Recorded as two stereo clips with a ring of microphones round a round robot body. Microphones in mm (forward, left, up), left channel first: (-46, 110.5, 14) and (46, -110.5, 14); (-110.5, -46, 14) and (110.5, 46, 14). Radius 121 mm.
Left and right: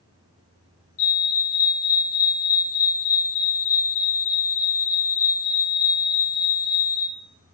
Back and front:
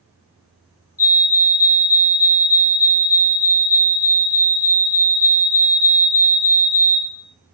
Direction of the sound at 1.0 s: 130° left.